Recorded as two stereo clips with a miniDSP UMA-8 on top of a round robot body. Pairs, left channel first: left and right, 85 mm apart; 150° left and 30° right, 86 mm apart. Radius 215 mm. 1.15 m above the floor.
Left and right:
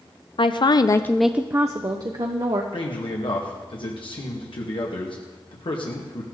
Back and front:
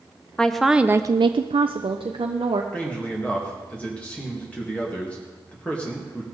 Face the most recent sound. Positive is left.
turn(degrees=75)